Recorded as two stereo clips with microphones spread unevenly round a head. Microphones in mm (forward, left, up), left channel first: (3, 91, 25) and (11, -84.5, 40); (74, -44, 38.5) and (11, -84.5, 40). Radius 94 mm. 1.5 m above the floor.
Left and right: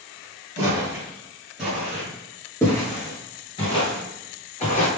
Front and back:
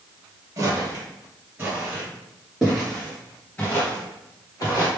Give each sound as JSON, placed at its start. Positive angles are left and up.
{"t": 0.6, "sound": "footsteps", "azimuth_deg": -145, "distance_m": 1.8}